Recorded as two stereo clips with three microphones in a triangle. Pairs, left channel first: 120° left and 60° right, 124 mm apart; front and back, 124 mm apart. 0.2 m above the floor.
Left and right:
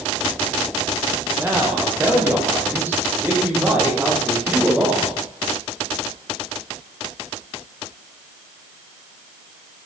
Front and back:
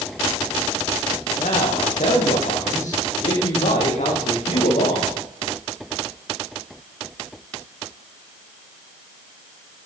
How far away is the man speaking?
About 9.5 m.